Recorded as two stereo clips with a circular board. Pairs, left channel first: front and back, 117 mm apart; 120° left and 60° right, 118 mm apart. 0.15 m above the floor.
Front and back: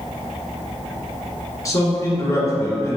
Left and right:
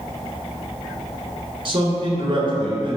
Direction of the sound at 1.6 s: 50° right.